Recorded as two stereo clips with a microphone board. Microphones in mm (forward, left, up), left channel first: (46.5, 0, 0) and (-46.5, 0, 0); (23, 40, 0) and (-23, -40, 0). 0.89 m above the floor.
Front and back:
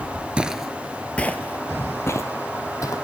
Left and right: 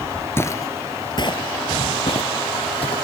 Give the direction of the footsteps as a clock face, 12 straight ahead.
8 o'clock.